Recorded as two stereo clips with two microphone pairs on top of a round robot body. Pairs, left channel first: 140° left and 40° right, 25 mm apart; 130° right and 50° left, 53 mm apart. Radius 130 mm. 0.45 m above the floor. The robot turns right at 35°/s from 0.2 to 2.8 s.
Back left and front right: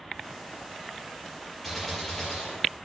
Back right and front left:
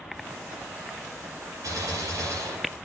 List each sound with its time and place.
1.6 s a gunshot: 60° left, 7 m; by 2.8 s 95° left, 7 m